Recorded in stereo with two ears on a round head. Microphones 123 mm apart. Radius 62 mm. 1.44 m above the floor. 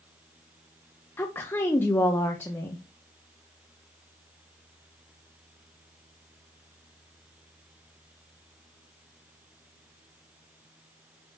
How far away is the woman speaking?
About 0.9 m.